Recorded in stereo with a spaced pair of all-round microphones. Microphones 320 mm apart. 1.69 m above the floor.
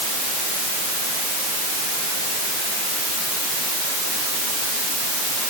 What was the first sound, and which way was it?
Only background noise.